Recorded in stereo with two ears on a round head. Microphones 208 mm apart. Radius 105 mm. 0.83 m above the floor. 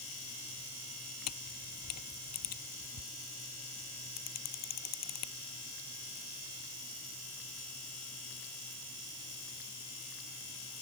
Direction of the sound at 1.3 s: 75° left (ahead or behind).